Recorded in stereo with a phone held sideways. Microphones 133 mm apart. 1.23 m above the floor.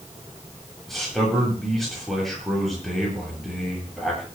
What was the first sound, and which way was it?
A man speaking, centre (ahead or behind).